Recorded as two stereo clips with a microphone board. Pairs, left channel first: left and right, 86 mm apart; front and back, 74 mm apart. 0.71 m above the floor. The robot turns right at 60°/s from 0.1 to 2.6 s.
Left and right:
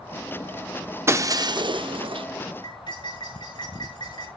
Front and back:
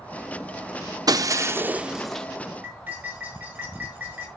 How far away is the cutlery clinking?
About 6 m.